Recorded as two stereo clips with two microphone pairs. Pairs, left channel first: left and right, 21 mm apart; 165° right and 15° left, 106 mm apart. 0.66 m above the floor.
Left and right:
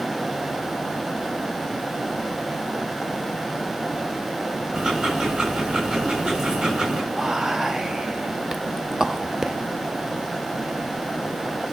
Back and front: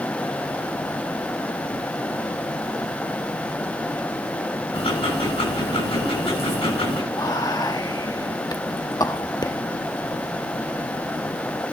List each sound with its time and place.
4.7 s ticking: 140° right, 7.5 m
7.1 s whispering: 135° right, 0.6 m